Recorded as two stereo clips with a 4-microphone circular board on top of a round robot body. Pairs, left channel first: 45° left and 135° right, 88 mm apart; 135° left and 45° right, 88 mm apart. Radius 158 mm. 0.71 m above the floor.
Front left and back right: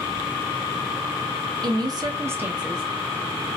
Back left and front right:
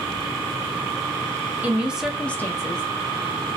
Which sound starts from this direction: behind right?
A woman speaking, at 1.6 s.